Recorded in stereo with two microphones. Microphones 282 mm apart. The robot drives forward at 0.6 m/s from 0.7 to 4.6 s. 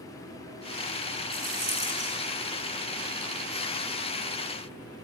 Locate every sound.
1.3 s a rattle: 70° right (ahead or behind), 1.9 m; by 2.2 s 55° right (ahead or behind), 2 m